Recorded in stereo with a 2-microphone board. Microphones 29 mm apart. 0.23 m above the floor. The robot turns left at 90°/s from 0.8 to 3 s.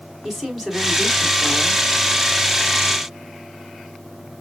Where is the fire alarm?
No fire alarm in this recording.